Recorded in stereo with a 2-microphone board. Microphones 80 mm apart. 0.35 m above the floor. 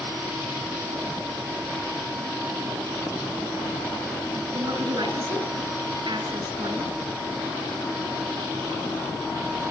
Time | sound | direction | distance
4.5 | a woman speaking | 70° right (ahead or behind) | 4.5 m